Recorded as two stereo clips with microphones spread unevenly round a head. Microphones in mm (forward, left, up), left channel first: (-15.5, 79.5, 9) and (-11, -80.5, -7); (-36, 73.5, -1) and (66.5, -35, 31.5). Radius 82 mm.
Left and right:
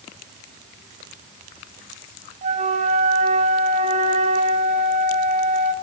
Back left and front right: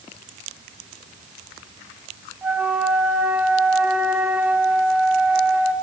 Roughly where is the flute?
Behind right.